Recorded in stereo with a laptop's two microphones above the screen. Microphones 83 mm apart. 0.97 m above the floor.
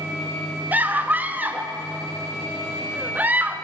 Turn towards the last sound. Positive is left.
turn(degrees=-20)  # may be behind; listen again after turning